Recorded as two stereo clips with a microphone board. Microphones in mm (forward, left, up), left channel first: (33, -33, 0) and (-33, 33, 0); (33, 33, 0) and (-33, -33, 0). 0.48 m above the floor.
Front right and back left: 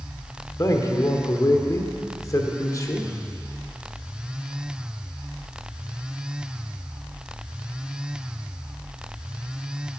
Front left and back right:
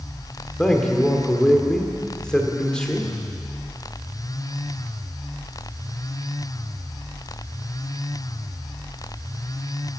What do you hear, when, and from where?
0.6 s a man speaking: 30° right, 1.4 m